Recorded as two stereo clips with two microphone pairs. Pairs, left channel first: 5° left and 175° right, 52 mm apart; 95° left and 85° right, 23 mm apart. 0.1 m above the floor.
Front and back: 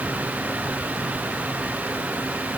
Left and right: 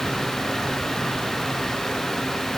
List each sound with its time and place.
Only background noise.